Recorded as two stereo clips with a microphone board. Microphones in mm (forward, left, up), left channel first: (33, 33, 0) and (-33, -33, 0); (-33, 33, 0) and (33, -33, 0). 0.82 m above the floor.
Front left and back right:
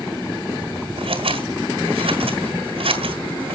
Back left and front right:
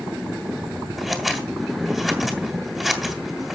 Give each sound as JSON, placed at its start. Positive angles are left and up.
{"t": 1.0, "sound": "scissors", "azimuth_deg": -130, "distance_m": 2.5}